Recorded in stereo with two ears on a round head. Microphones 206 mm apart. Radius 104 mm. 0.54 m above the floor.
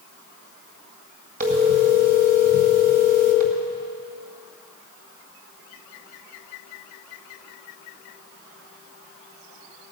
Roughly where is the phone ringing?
Right.